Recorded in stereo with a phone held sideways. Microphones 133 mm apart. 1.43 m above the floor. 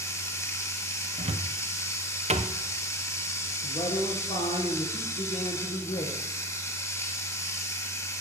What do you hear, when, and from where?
0.0 s running water: 20° left (ahead or behind), 1.3 m
1.2 s a cupboard door: 55° right (ahead or behind), 0.7 m
3.6 s a man speaking: 55° left (ahead or behind), 1.5 m